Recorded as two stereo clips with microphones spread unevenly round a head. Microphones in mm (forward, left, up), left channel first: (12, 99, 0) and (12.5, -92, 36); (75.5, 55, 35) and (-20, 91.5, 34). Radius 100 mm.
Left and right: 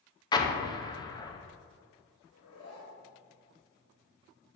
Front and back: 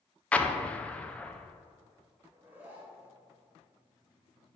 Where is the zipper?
85° left, 2 m.